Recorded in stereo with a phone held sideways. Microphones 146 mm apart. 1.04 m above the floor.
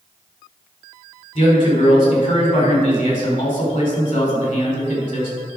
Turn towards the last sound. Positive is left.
turn(degrees=60)  # may be behind; listen again after turning